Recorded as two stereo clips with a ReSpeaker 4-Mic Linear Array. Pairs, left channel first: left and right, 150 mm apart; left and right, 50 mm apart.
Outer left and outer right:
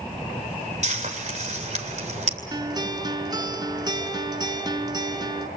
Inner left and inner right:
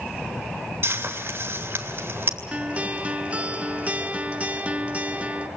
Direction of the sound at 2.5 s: 25° right (ahead or behind).